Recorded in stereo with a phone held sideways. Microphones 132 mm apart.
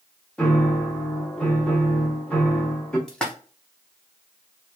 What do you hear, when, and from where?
0.4 s a piano: 5° left (ahead or behind), 0.7 m
3.1 s a splash: 5° left (ahead or behind), 0.7 m